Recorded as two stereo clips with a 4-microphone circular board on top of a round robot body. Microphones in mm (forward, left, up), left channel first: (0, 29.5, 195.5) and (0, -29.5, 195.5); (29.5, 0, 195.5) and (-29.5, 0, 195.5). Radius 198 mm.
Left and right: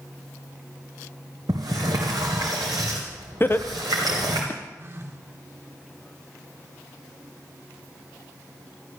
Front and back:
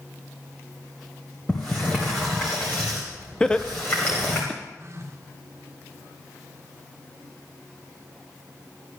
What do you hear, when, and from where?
1.5 s a sliding door: 70° right, 0.7 m
3.4 s laughter: 65° left, 1.0 m
4.8 s a phone buzzing: 140° right, 1.5 m